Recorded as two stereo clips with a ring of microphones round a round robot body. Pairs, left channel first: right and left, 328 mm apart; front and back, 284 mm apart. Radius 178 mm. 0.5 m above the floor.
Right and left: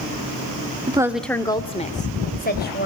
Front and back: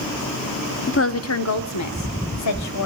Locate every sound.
0.9 s a woman speaking: 25° left, 0.8 m; by 2.9 s 30° right, 2.5 m